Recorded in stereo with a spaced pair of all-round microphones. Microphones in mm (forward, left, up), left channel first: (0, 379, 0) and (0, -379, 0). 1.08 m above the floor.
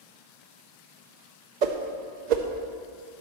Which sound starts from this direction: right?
A whoosh, at 1.6 s.